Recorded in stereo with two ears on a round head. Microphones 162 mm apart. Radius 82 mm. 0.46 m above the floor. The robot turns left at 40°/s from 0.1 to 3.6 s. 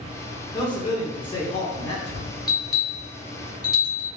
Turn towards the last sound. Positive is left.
turn(degrees=25)  # may be behind; listen again after turning